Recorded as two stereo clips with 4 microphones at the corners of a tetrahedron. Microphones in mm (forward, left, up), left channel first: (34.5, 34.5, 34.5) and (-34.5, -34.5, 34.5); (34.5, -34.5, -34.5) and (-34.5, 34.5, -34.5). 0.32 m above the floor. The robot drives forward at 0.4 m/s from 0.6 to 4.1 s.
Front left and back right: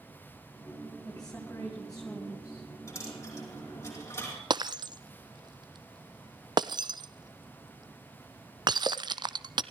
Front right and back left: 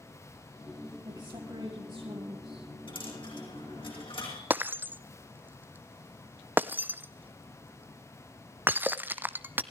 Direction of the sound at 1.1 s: 120° left.